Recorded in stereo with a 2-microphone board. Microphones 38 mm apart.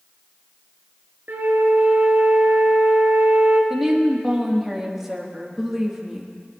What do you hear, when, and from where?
1.3 s a flute: 70° right (ahead or behind), 1.1 m
3.7 s a woman speaking: 10° right (ahead or behind), 1.6 m